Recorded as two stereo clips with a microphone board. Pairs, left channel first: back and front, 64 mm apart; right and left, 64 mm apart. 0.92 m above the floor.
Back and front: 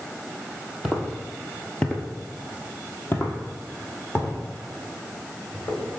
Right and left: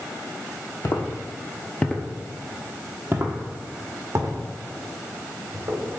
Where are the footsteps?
85° right, 1.5 m; by 5.8 s 120° left, 4 m.